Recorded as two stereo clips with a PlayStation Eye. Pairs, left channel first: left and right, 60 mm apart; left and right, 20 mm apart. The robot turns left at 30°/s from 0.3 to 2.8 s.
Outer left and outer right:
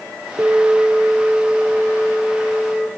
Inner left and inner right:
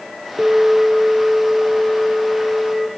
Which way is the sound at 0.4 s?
155° right.